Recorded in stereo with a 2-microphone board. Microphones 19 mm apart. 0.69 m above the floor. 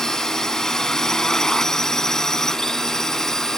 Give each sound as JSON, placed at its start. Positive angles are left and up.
{"t": 0.0, "sound": "a drone", "side_deg": 30}